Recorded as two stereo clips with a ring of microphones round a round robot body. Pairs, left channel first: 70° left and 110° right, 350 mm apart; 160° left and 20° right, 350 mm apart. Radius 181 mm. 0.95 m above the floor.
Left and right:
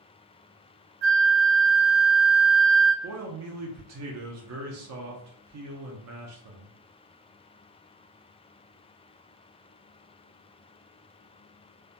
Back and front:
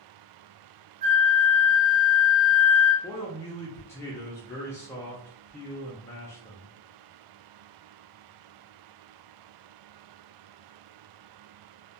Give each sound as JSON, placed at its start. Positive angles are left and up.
{"t": 1.0, "sound": "a flute", "azimuth_deg": -65, "distance_m": 0.6}
{"t": 3.0, "sound": "a man speaking", "azimuth_deg": -125, "distance_m": 0.5}